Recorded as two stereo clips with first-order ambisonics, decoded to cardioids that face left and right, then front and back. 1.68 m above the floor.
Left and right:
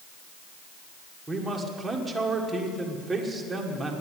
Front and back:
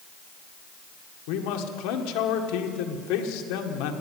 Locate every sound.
1.3 s a man speaking: 5° right, 1.6 m